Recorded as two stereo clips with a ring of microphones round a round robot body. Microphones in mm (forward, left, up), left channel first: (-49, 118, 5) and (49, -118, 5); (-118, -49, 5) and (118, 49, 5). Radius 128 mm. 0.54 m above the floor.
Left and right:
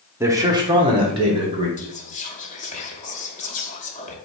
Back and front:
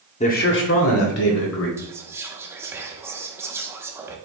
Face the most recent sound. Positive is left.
turn(degrees=95)